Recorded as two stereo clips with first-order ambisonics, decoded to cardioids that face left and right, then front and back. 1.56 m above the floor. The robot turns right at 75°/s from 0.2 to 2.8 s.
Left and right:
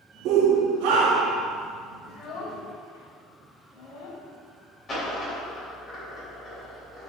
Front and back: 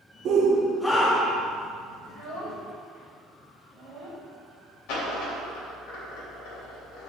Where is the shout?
130° right, 0.8 m; by 1.4 s 40° right, 0.8 m.